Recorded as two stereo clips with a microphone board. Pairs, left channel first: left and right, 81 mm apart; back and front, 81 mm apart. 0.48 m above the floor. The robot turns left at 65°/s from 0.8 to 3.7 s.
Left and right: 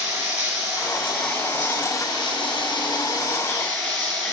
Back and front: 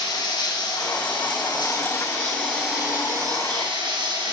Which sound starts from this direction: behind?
Running water, at 0.0 s.